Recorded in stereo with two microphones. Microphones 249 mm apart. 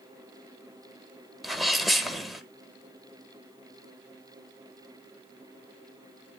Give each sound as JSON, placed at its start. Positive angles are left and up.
{"t": 1.4, "sound": "a sneeze", "side_deg": 0, "distance_m": 1.1}